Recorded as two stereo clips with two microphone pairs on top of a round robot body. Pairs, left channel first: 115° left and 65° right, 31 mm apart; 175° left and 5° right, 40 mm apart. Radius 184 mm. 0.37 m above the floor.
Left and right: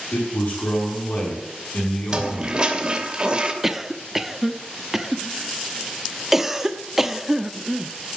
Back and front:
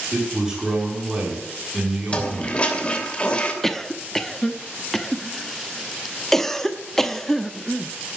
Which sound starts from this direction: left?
A man speaking, at 0.1 s.